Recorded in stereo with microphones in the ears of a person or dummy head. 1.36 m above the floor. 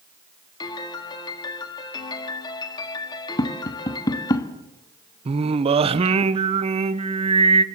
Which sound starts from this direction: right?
Singing, at 5.2 s.